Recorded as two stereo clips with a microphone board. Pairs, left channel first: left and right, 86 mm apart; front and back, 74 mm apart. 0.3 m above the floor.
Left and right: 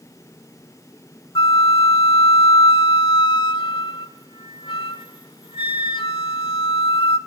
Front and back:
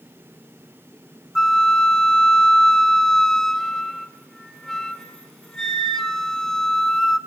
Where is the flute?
85° left, 1.0 m.